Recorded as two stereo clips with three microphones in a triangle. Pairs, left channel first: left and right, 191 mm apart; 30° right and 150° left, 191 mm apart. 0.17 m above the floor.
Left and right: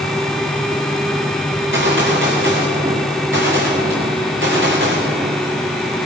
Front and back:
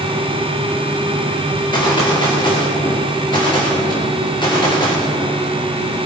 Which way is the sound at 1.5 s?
100° right.